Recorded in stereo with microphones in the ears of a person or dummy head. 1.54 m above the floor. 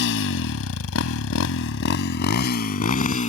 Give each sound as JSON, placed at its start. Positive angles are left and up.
{"t": 0.0, "sound": "a motorcycle", "side_deg": 65}